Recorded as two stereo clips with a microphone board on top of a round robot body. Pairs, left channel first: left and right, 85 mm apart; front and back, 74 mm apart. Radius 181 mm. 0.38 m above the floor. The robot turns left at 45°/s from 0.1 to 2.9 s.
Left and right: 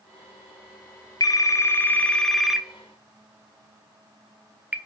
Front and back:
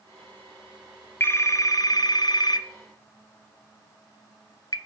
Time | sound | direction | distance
1.2 | a phone ringing | 55° left | 1.2 m